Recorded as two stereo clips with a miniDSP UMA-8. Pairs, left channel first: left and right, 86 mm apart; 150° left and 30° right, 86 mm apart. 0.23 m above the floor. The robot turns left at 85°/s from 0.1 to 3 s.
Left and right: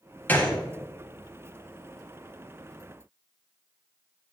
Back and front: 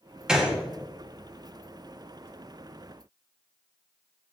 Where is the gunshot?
45° left, 1.3 m; by 0.6 s 20° left, 1.3 m.